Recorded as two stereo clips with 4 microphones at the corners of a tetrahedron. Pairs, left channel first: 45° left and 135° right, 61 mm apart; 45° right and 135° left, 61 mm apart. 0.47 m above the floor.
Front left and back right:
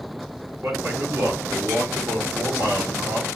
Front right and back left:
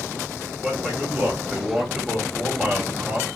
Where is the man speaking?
140° right, 1.0 m.